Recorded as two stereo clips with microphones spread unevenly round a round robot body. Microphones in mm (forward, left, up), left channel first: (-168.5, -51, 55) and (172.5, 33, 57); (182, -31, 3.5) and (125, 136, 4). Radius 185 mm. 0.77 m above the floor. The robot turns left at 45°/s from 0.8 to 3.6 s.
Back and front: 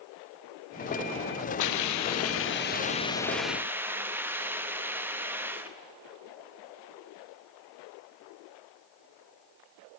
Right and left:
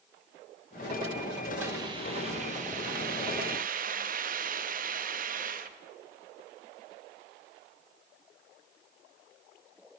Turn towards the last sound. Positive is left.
turn(degrees=95)